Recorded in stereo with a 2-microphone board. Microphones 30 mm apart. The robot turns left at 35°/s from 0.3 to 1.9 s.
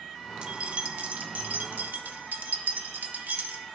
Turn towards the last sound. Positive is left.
turn(degrees=-75)  # may be behind; listen again after turning